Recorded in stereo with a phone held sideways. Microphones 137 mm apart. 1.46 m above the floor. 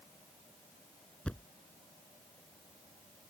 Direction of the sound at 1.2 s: 10° left (ahead or behind).